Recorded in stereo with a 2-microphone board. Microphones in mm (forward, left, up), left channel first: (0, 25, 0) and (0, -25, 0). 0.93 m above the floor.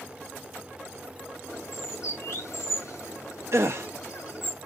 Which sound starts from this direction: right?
A gasp, at 3.5 s.